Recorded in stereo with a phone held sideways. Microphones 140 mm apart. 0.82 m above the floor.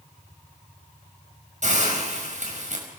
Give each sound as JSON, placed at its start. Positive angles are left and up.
{"t": 1.6, "sound": "a hiss", "side_deg": -55, "distance_m": 5.5}